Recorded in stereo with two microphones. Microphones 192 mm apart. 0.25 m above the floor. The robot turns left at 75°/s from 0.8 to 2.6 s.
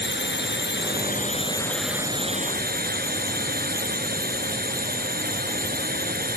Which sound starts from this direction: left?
A drone, at 0.0 s.